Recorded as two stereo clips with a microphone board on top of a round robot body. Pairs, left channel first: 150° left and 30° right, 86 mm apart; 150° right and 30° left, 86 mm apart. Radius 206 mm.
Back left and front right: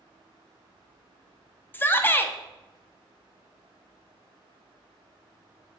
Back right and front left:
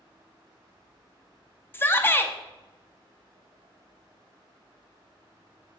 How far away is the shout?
About 0.6 m.